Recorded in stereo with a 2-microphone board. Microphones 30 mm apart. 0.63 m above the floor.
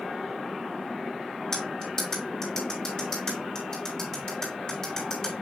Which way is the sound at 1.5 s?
15° left (ahead or behind).